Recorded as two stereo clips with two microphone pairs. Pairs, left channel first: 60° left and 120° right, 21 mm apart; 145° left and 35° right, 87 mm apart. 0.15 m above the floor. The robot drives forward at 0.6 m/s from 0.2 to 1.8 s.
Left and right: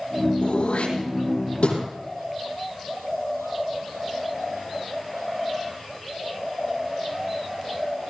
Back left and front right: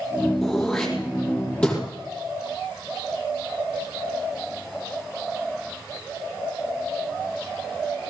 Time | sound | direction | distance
0.4 | throat clearing | 60° left | 6.5 m